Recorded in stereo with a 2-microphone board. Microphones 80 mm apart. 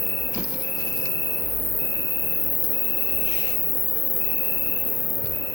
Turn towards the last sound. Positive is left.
turn(degrees=40)  # may be behind; listen again after turning